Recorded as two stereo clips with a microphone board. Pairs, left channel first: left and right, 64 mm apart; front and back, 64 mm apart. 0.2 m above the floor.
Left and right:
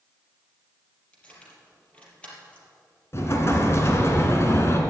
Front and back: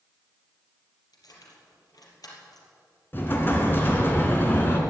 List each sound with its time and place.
1.1 s keys jangling: 20° left, 3.5 m
3.1 s an explosion: 50° left, 2.5 m